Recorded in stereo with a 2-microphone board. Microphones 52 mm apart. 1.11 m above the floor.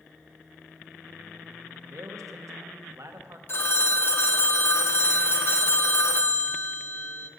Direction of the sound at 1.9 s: 75° right (ahead or behind).